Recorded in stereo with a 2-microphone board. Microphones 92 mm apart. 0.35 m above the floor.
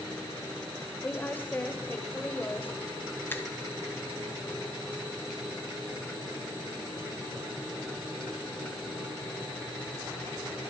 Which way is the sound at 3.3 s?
20° left (ahead or behind).